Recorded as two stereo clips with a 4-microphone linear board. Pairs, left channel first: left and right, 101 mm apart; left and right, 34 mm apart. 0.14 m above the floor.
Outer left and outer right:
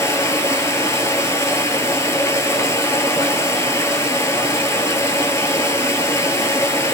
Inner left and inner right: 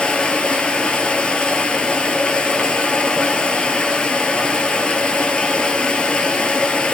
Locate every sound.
0.0 s running water: 30° left (ahead or behind), 0.7 m